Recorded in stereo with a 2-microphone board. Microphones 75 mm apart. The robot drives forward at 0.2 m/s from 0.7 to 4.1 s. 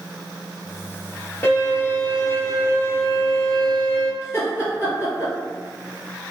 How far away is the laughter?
About 1.9 m.